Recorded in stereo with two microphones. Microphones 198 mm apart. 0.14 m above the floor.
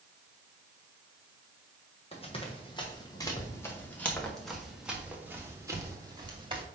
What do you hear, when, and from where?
2.1 s running footsteps: 30° left (ahead or behind), 3 m; by 6.6 s 25° right (ahead or behind), 2.5 m